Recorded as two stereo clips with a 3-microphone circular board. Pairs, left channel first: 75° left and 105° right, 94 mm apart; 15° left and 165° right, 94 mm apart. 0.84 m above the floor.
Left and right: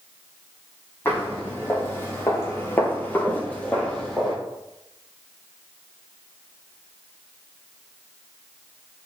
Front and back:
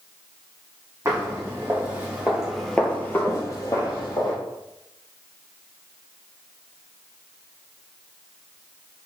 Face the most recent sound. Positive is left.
turn(degrees=-10)